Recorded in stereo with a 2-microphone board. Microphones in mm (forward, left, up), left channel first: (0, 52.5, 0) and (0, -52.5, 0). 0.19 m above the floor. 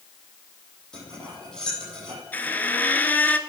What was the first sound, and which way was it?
Cutlery clinking, 5° left (ahead or behind).